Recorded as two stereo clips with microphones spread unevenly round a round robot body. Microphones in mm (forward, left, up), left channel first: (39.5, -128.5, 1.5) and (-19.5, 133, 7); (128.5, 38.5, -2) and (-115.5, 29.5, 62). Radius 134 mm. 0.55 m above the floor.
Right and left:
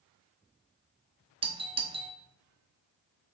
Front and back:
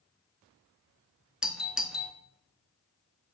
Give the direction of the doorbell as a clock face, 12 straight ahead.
10 o'clock.